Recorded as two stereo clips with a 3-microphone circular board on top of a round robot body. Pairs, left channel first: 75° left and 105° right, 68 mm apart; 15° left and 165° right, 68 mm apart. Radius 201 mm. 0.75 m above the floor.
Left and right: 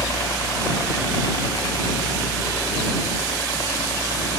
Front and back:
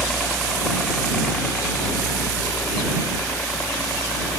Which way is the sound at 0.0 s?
100° left.